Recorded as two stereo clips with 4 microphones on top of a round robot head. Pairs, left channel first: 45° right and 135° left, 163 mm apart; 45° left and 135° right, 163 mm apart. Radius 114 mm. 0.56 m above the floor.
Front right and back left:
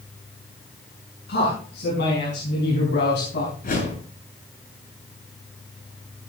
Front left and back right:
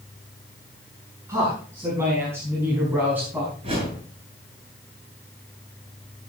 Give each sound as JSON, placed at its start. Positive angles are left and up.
{"t": 1.3, "sound": "a man speaking", "azimuth_deg": -65, "distance_m": 7.0}
{"t": 3.6, "sound": "a whoosh", "azimuth_deg": -80, "distance_m": 9.5}